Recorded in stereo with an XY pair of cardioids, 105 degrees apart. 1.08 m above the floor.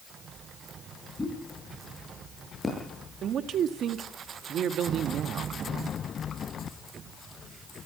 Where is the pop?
20° left, 9.5 m.